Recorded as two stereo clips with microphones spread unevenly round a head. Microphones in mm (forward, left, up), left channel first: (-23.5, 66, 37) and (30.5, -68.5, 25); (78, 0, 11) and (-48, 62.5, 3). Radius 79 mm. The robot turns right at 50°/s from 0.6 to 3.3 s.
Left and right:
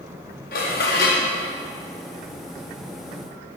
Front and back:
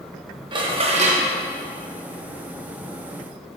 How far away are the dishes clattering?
About 1.1 m.